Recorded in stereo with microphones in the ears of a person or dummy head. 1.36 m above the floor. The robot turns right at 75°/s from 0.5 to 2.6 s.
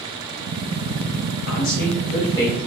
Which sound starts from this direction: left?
A man speaking, at 1.5 s.